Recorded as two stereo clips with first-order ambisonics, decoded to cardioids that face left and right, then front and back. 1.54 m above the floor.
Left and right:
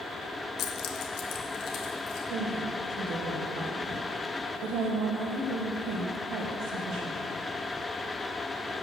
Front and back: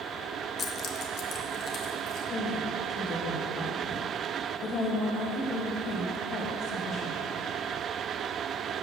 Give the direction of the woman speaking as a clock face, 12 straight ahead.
2 o'clock.